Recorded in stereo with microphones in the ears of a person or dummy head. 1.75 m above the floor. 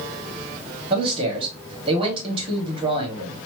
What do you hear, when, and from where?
0.9 s a man speaking: 30° right (ahead or behind), 1.9 m